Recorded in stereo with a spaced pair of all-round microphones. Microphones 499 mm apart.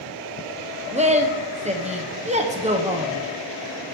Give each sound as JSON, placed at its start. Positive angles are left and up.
{"t": 0.9, "sound": "a woman speaking", "side_deg": -15, "distance_m": 0.7}